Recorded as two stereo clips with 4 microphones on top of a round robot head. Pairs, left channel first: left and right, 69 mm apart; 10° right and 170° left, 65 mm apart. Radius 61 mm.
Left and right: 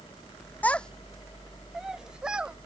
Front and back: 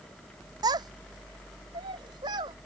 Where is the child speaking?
160° left; by 2.6 s 165° right.